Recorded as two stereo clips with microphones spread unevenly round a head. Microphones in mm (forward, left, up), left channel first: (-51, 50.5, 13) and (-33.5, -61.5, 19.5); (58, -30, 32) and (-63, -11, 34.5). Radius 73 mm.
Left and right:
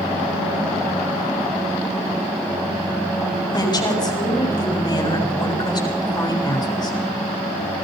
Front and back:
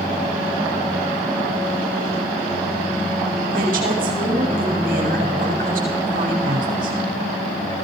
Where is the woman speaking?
150° left, 7.5 m.